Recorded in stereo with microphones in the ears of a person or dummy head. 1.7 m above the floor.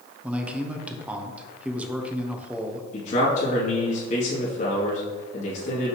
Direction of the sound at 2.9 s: 45° left (ahead or behind).